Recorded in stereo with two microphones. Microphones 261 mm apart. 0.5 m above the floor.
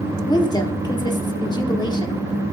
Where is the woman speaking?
15° left (ahead or behind), 0.8 m.